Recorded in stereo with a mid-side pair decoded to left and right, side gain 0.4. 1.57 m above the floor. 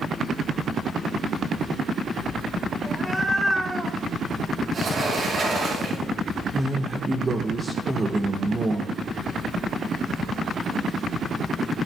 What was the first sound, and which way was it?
A cat meowing, 5° right.